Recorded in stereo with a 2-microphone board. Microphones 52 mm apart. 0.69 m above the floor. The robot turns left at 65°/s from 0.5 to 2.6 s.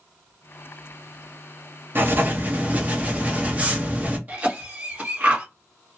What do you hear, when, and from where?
1.9 s writing: 90° right, 0.8 m; by 4.2 s 135° right, 0.8 m
4.3 s a cough: 30° right (ahead or behind), 1.4 m